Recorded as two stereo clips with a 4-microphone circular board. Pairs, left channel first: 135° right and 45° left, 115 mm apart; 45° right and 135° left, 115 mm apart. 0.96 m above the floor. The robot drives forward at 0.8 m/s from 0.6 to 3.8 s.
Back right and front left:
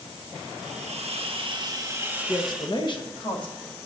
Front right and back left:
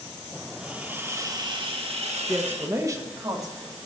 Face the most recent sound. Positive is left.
turn(degrees=-175)